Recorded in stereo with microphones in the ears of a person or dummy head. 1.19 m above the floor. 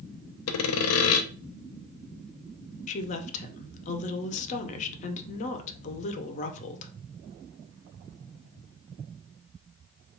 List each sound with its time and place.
0.5 s sawing: 75° left (ahead or behind), 0.5 m
2.9 s a woman speaking: 35° left (ahead or behind), 0.6 m